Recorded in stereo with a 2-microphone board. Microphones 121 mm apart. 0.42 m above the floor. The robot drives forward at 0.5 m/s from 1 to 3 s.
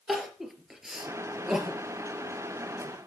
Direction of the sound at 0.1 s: 5° right (ahead or behind).